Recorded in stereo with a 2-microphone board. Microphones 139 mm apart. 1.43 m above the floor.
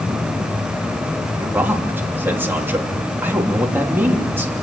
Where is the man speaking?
15° right (ahead or behind), 3.5 m.